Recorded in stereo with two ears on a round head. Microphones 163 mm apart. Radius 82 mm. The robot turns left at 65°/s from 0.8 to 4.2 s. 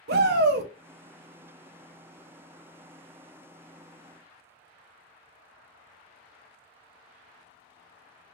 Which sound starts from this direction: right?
A shout, at 0.1 s.